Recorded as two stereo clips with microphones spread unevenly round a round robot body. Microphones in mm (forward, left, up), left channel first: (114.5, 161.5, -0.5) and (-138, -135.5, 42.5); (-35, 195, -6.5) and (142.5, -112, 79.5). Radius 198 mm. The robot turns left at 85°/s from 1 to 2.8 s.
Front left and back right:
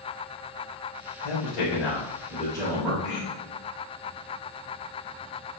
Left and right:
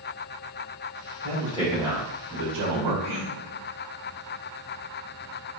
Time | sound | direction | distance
1.2 | a man speaking | 85° left | 1.5 m
3.0 | throat clearing | 80° left | 1.7 m